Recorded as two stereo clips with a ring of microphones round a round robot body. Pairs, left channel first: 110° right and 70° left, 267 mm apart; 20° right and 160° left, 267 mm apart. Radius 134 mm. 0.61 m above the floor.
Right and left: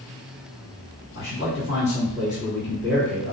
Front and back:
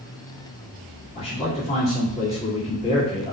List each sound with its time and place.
1.1 s a man speaking: 85° right, 1.6 m